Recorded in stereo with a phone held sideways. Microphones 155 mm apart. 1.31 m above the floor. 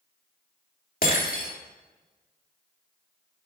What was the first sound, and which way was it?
Breaking glass, 65° left (ahead or behind).